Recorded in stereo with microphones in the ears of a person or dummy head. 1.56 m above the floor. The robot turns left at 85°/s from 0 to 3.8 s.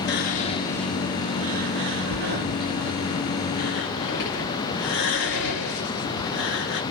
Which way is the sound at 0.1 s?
60° left (ahead or behind).